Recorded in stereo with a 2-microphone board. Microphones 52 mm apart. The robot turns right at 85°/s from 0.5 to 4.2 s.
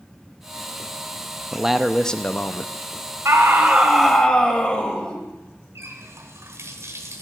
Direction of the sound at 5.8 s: 65° right (ahead or behind).